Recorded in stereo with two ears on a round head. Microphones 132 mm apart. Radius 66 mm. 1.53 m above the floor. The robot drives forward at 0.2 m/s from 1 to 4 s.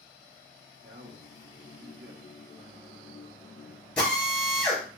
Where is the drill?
5° left (ahead or behind), 3 m.